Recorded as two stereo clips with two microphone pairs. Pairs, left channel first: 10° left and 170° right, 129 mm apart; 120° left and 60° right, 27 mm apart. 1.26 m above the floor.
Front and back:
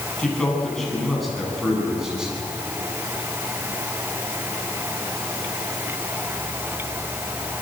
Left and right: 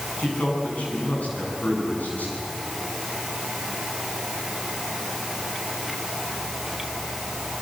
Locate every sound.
0.2 s a man speaking: 90° left, 9.5 m; by 2.5 s 105° left, 9.5 m